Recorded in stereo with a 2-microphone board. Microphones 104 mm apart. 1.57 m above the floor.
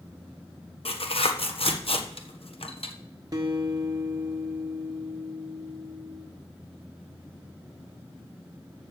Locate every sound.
0.8 s tearing paper: 65° left (ahead or behind), 1.2 m
3.3 s a guitar: 35° right (ahead or behind), 1.4 m